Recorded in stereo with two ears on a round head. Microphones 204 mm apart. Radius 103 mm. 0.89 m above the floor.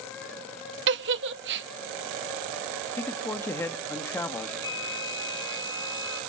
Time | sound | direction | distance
0.9 | a giggle | 50° right (ahead or behind) | 0.7 m
3.0 | a man speaking | 10° left (ahead or behind) | 1.8 m
4.6 | a flute | 20° left (ahead or behind) | 2.5 m